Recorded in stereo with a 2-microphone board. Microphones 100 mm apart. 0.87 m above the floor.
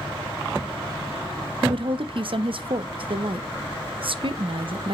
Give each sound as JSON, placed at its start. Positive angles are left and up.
{"t": 1.6, "sound": "a woman speaking", "side_deg": -60, "distance_m": 0.7}